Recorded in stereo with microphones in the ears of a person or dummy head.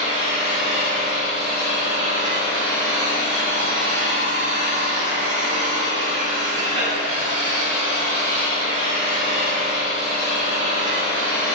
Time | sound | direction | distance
0.0 | an engine running | 25° right (ahead or behind) | 0.7 m